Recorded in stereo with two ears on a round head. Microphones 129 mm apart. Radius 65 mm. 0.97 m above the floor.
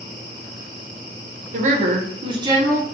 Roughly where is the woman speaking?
Right.